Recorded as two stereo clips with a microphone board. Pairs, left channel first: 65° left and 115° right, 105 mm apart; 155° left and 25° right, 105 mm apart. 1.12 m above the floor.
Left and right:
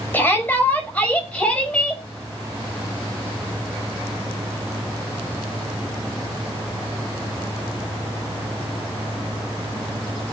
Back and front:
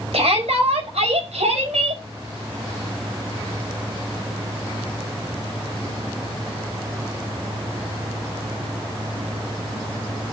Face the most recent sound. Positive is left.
turn(degrees=-15)